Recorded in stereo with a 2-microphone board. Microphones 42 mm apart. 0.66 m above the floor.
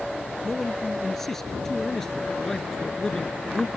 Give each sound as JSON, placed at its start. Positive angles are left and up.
{"t": 0.4, "sound": "a man speaking", "side_deg": 5}